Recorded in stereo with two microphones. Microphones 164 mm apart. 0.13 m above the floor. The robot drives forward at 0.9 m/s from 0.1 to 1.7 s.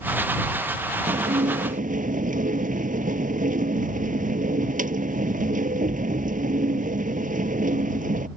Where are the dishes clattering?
45° right (ahead or behind); by 8.3 s 55° right (ahead or behind).